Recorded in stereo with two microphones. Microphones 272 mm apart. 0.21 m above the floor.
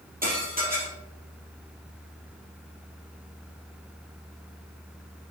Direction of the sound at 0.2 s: 35° right (ahead or behind).